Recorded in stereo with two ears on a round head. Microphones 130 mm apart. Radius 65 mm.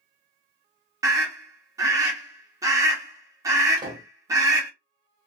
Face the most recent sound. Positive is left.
turn(degrees=-30)  # may be behind; listen again after turning